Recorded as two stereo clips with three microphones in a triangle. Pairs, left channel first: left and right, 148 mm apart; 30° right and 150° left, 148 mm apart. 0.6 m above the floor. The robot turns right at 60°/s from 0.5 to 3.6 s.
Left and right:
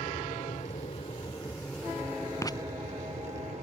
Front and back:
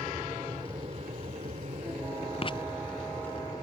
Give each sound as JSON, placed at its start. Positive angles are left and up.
{"t": 0.0, "sound": "an aircraft", "azimuth_deg": 90}
{"t": 2.4, "sound": "writing", "azimuth_deg": 20}